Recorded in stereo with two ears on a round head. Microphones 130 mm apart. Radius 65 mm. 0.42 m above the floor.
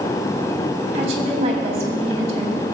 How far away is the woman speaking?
About 3 m.